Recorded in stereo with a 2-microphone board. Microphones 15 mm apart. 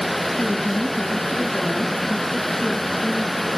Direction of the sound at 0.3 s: 85° left.